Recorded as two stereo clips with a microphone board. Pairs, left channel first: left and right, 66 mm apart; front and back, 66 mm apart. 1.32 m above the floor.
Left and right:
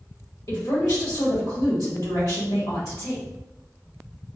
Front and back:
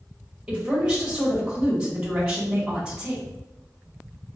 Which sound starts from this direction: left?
A woman speaking, at 0.5 s.